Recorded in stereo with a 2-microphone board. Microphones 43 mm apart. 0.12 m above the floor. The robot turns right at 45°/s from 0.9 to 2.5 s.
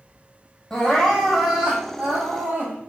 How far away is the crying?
About 1.7 m.